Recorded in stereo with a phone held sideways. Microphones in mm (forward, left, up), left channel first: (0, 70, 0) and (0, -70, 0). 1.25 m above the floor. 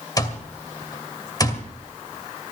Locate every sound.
0.2 s an alarm clock: 25° left (ahead or behind), 2 m